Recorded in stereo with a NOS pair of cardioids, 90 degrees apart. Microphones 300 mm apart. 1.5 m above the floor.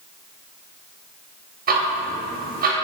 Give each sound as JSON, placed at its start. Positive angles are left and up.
{"t": 1.7, "sound": "ticking", "azimuth_deg": -30, "distance_m": 0.7}